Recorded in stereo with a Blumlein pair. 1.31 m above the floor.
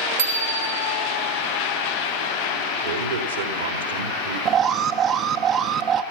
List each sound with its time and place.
0.2 s a bicycle bell: 60° right, 2 m
2.8 s a man speaking: 70° right, 3 m
4.5 s an alarm: 30° right, 0.9 m